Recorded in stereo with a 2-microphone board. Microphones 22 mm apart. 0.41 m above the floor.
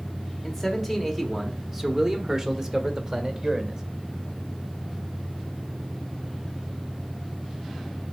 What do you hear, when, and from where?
0.4 s a man speaking: 5° left (ahead or behind), 1.3 m; by 3.8 s 40° right (ahead or behind), 1.8 m